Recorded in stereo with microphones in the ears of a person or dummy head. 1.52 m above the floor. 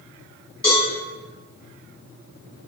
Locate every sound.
0.6 s a cowbell: 10° left (ahead or behind), 1.6 m